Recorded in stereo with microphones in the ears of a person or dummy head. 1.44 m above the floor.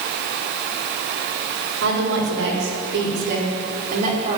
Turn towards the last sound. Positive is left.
turn(degrees=-35)  # may be behind; listen again after turning